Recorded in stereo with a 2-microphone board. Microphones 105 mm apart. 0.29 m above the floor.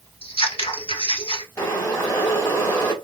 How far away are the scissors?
About 0.9 m.